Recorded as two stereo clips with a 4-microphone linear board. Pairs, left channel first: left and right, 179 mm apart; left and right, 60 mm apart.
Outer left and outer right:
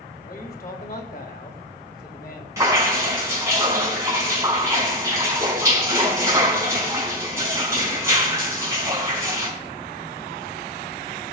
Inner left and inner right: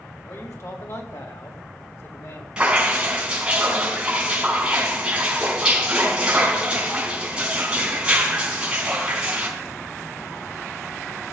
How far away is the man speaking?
About 2.5 m.